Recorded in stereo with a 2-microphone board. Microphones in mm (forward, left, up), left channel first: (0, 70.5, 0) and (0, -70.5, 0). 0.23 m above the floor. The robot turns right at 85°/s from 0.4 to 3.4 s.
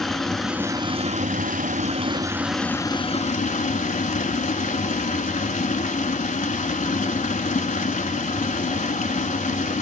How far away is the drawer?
No drawer in this recording.